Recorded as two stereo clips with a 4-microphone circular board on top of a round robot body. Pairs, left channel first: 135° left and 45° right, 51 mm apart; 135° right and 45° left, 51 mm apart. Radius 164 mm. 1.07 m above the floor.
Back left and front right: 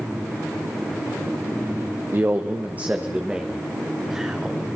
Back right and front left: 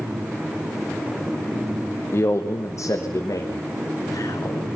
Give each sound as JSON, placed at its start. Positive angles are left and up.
{"t": 2.1, "sound": "a man speaking", "azimuth_deg": -95, "distance_m": 1.0}